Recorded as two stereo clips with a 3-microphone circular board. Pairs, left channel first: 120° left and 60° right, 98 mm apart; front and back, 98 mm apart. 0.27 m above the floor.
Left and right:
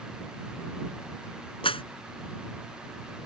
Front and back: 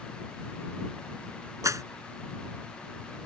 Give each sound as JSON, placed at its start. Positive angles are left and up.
{"t": 1.6, "sound": "a clap", "azimuth_deg": 125}